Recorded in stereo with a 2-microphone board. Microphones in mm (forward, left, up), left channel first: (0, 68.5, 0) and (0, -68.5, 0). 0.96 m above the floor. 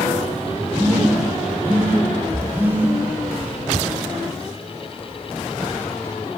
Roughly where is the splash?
Centre.